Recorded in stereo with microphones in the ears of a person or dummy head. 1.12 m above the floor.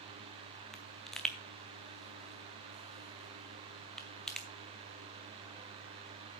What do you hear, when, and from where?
0.7 s a pop: centre (ahead or behind), 0.7 m